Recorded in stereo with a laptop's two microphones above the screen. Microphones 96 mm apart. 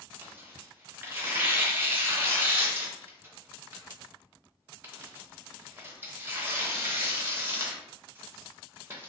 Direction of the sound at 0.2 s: 20° right (ahead or behind).